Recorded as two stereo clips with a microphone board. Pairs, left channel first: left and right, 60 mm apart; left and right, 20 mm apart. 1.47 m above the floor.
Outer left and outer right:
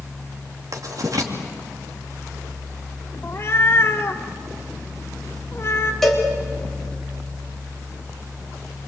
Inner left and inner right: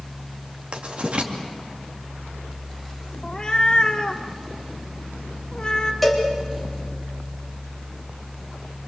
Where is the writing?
65° right (ahead or behind), 2.5 m.